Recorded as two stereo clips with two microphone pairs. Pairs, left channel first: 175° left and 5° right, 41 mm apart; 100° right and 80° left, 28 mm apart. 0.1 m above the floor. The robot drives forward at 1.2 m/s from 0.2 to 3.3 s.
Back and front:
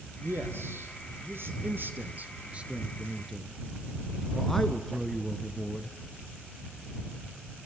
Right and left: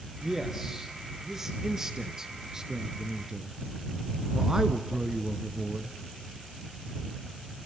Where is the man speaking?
5° left, 4 m; by 6.0 s 100° left, 1.2 m.